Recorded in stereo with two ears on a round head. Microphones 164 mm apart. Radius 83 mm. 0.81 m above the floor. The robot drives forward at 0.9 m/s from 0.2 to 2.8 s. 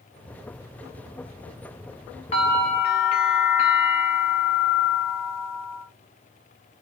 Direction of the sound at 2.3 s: 40° left (ahead or behind).